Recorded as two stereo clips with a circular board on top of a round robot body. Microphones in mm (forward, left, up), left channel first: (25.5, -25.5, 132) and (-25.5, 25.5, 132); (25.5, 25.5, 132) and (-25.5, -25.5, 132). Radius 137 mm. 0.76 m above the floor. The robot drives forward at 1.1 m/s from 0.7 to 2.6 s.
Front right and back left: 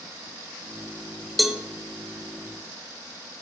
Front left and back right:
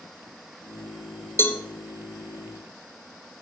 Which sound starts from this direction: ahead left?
A cowbell, at 1.4 s.